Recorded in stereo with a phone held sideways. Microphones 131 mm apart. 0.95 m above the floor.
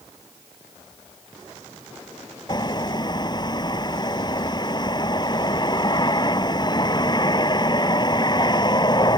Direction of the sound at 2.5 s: 30° left (ahead or behind).